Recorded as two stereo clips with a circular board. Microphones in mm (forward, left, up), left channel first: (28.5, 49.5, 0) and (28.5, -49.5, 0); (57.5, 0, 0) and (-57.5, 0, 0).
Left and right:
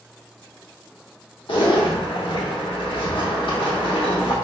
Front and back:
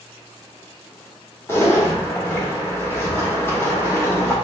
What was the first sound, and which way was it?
A zipper, 65° left.